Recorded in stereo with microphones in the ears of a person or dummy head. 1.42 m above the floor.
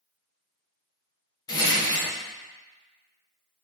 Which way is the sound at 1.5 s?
20° left (ahead or behind).